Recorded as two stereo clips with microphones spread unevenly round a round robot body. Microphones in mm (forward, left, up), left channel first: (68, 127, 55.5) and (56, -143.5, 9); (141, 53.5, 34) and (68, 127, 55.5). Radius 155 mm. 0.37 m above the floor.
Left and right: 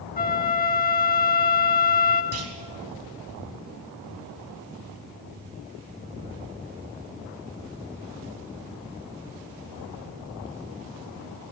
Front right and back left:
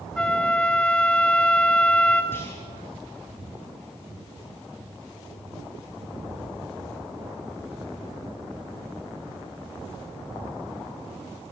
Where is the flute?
30° left, 2.5 m.